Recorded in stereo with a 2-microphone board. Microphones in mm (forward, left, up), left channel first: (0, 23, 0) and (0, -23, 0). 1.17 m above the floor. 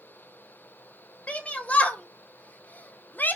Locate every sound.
1.3 s a shout: 25° left (ahead or behind), 2.5 m; by 3.4 s 40° left (ahead or behind), 1.3 m